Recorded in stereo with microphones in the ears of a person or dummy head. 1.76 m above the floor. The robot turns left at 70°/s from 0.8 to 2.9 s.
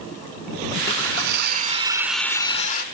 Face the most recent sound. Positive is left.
turn(degrees=125)